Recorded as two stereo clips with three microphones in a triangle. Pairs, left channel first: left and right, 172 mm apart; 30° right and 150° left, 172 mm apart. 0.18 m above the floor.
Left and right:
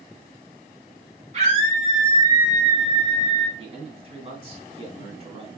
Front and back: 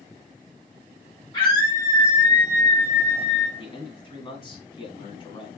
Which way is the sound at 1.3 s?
75° right.